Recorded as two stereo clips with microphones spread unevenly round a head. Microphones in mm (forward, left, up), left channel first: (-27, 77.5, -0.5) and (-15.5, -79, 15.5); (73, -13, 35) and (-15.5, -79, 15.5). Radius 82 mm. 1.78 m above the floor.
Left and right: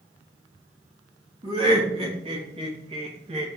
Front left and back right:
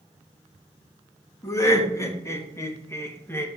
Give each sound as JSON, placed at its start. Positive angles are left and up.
{"t": 1.4, "sound": "laughter", "azimuth_deg": -25, "distance_m": 3.5}